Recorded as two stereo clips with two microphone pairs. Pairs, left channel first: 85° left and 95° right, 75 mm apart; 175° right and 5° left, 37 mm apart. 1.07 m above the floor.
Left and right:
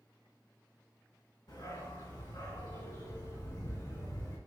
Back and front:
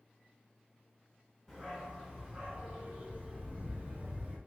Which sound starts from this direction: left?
A dog barking, at 1.5 s.